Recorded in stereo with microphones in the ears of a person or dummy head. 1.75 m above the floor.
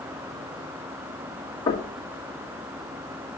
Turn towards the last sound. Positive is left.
turn(degrees=30)  # may be behind; listen again after turning